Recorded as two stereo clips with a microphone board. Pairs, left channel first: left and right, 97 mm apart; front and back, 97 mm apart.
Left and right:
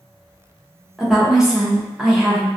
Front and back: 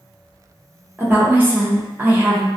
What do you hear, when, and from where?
1.0 s a woman speaking: 160° right, 0.6 m